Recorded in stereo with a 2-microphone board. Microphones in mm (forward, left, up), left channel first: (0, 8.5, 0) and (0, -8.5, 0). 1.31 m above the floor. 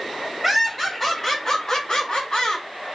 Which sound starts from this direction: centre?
Laughter, at 0.4 s.